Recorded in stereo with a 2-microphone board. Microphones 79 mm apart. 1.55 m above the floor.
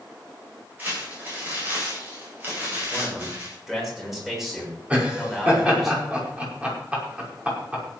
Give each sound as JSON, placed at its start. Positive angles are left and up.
{"t": 0.8, "sound": "crumpling", "side_deg": -25, "distance_m": 9.0}
{"t": 2.9, "sound": "a man speaking", "side_deg": 0, "distance_m": 6.5}
{"t": 4.9, "sound": "laughter", "side_deg": -15, "distance_m": 5.5}